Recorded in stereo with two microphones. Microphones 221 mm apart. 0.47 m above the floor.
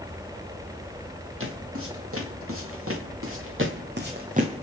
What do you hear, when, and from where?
1.4 s footsteps: 75° right (ahead or behind), 3.5 m; by 4.6 s 25° right (ahead or behind), 1.6 m